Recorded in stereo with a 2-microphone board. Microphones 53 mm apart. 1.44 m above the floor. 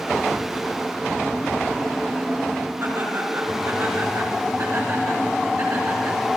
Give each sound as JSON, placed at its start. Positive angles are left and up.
{"t": 2.8, "sound": "laughter", "side_deg": -70, "distance_m": 6.0}